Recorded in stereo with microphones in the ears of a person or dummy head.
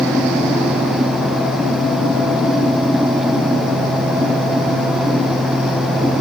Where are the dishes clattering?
I don't hear dishes clattering.